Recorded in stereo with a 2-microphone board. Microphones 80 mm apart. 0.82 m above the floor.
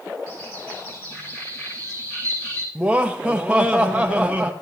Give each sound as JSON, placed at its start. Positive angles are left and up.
{"t": 0.3, "sound": "a bird", "side_deg": 35, "distance_m": 5.5}
{"t": 2.8, "sound": "laughter", "side_deg": -15, "distance_m": 0.6}